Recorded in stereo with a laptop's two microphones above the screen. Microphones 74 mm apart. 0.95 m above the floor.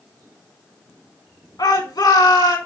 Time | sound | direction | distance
1.6 | a shout | 70° left (ahead or behind) | 3.5 m